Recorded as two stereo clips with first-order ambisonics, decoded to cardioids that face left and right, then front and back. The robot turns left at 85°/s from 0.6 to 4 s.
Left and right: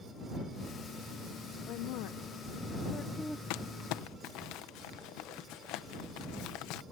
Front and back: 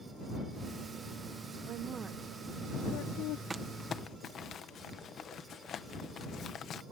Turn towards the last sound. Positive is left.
turn(degrees=60)